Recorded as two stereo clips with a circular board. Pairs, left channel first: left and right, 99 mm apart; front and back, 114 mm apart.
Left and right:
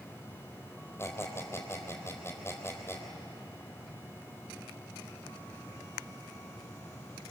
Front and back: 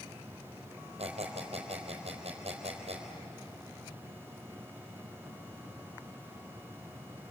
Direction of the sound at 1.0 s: 155° left.